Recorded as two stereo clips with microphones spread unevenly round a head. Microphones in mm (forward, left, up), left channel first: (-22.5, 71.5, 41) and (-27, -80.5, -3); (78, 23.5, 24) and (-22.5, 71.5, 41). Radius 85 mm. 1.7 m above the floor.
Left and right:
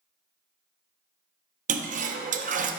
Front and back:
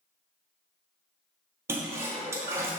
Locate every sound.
1.7 s a toilet flushing: 130° right, 0.7 m